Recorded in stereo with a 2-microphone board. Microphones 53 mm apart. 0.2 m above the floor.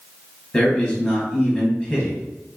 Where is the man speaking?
15° left (ahead or behind), 1.0 m.